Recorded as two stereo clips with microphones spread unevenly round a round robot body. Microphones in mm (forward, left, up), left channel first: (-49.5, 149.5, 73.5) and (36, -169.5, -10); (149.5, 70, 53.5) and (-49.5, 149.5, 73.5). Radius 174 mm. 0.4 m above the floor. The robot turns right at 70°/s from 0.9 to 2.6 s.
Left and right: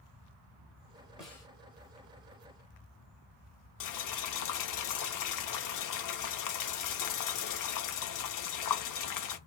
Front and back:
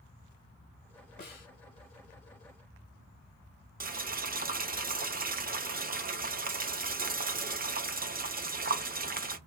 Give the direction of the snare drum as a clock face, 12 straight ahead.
12 o'clock.